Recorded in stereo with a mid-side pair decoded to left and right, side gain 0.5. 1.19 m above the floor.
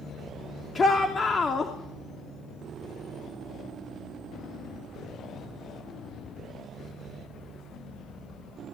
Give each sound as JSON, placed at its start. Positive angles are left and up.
{"t": 0.8, "sound": "a shout", "azimuth_deg": 30, "distance_m": 3.0}